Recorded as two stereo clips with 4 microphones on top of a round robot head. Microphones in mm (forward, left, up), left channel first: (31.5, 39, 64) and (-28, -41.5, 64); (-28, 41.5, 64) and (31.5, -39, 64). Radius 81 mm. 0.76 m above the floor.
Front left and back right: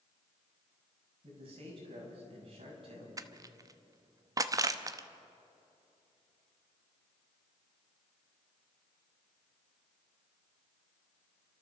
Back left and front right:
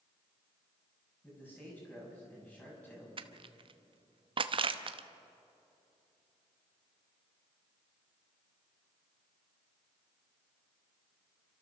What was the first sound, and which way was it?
A man speaking, 160° right.